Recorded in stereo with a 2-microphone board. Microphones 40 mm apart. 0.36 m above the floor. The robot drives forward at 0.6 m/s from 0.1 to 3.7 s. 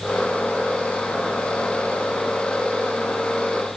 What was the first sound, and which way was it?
Only background noise.